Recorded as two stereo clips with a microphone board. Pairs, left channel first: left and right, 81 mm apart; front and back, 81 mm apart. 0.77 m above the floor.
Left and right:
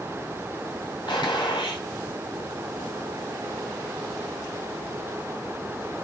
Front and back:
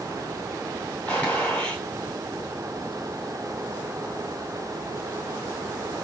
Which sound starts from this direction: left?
A gunshot, at 1.1 s.